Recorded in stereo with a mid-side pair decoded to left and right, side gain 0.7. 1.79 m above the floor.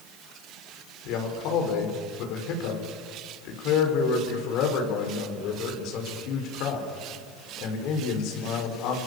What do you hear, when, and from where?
1.1 s a man speaking: 60° left, 7 m